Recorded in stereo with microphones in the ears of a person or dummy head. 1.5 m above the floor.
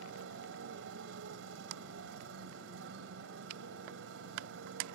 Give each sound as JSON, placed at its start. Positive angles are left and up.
{"t": 0.0, "sound": "a motorcycle", "side_deg": -75}